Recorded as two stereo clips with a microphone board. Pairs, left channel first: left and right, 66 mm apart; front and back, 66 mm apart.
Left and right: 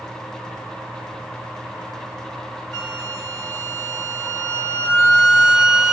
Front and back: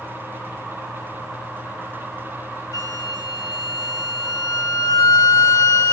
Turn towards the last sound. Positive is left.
turn(degrees=0)